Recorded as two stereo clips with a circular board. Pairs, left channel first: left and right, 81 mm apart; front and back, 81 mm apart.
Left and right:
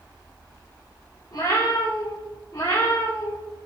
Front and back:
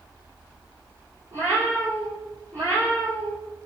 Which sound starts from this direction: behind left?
A cat meowing, at 1.3 s.